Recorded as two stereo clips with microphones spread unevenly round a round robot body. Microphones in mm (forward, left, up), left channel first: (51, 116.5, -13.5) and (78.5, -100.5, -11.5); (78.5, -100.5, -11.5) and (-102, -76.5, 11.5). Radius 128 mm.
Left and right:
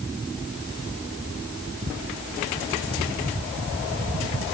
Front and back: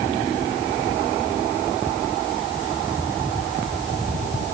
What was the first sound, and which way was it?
Only background noise.